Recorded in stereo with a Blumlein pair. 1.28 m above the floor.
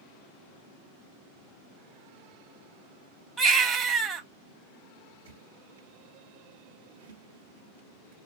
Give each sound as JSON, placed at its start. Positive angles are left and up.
{"t": 3.4, "sound": "a baby crying", "azimuth_deg": -20, "distance_m": 1.0}
{"t": 5.2, "sound": "a squeak", "azimuth_deg": -65, "distance_m": 1.0}